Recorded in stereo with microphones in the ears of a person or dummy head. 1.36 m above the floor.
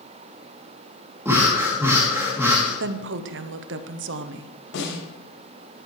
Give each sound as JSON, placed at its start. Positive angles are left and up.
{"t": 1.2, "sound": "breathing", "side_deg": -15, "distance_m": 3.0}
{"t": 2.8, "sound": "a woman speaking", "side_deg": -65, "distance_m": 0.8}
{"t": 4.7, "sound": "a snare drum", "side_deg": 80, "distance_m": 6.5}